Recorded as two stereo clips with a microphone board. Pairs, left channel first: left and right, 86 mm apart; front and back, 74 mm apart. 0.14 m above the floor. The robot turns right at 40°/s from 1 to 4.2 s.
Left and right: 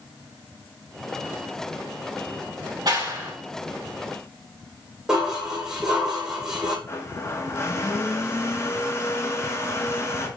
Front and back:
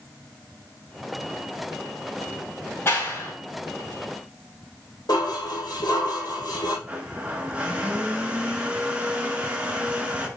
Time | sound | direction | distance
2.9 | a clap | 55° right | 4 m
5.1 | dishes clattering | 5° right | 5 m
6.9 | a blender | 120° left | 1.5 m